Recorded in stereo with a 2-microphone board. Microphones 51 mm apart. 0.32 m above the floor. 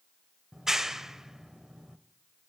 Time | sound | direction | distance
0.5 | a clap | 10° right (ahead or behind) | 0.9 m